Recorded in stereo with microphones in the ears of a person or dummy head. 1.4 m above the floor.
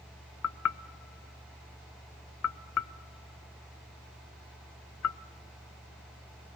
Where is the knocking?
85° left, 0.7 m.